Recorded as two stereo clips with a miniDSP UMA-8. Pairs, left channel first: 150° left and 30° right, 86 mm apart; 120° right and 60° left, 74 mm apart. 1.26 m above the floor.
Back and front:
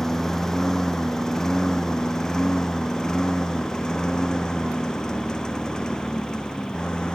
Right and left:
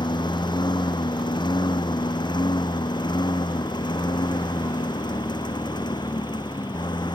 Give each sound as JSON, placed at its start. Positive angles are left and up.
{"t": 0.0, "sound": "a lawn mower", "azimuth_deg": -125}